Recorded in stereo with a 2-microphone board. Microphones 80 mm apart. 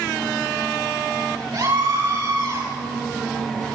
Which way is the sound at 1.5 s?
70° right (ahead or behind).